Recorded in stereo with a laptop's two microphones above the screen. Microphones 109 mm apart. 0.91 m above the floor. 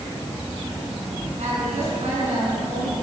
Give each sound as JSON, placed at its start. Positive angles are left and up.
{"t": 1.4, "sound": "a woman speaking", "side_deg": -85, "distance_m": 8.0}